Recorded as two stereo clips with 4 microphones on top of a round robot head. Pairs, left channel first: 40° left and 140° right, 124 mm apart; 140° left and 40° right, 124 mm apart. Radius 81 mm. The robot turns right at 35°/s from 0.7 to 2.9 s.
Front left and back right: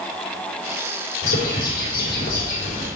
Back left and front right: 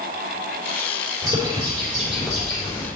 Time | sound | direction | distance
1.2 | a bird | 20° left | 3.5 m